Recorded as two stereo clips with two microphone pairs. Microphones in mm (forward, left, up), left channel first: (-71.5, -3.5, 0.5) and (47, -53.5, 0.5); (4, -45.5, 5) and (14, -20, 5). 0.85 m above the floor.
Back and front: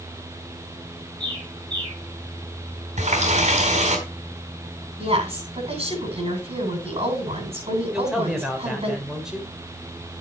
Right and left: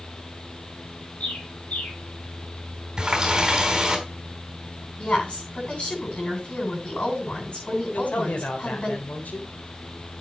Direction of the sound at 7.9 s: 105° right.